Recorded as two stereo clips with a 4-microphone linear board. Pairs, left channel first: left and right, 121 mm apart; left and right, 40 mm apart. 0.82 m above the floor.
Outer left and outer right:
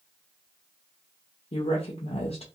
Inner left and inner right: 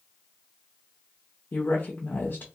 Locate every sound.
1.5 s a woman speaking: 55° left (ahead or behind), 0.6 m